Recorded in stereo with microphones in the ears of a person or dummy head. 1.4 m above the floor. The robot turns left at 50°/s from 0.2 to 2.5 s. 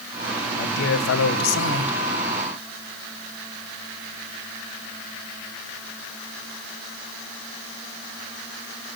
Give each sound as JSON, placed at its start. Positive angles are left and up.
{"t": 0.5, "sound": "a man speaking", "azimuth_deg": 135, "distance_m": 0.9}